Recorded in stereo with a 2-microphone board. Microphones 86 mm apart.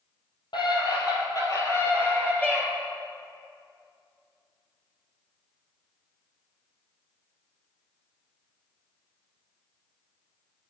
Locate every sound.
0.5 s a scream: 60° left (ahead or behind), 4 m; by 2.7 s 5° left (ahead or behind), 3 m